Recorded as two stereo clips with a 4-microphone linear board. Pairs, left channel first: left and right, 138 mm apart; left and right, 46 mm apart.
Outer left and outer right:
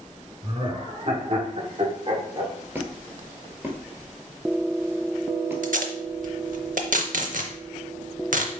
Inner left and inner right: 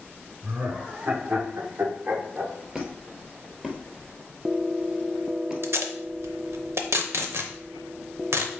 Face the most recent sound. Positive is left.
turn(degrees=-70)  # may be behind; listen again after turning